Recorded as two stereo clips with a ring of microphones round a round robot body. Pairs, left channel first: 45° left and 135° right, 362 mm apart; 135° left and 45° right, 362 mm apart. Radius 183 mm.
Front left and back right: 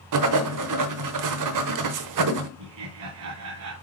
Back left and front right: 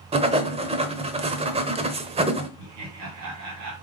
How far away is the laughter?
About 3 m.